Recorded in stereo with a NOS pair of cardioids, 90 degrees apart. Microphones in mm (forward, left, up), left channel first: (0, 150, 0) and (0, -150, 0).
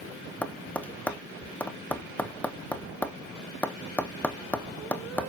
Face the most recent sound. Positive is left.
turn(degrees=5)